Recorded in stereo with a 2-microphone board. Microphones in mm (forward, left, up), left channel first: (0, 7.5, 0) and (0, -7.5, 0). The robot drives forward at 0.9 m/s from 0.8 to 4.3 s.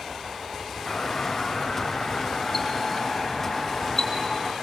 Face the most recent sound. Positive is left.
turn(degrees=20)  # may be behind; listen again after turning